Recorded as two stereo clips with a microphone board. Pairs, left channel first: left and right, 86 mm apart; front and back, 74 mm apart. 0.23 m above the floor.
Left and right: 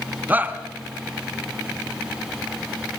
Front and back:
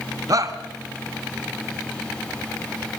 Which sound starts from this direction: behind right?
A shout, at 0.3 s.